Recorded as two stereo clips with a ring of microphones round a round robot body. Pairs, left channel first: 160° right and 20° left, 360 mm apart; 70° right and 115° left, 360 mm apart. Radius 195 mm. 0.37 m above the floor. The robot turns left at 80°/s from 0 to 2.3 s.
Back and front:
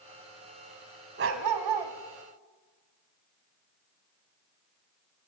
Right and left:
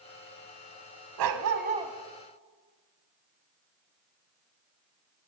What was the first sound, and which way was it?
A dog barking, 85° left.